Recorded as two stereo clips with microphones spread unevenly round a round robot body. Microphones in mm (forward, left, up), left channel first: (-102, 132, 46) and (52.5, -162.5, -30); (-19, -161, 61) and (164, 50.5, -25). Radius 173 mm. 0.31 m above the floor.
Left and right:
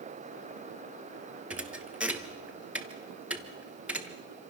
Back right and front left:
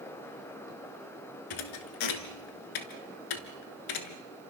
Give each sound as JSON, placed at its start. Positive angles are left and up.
{"t": 1.5, "sound": "a thud", "azimuth_deg": -150, "distance_m": 1.6}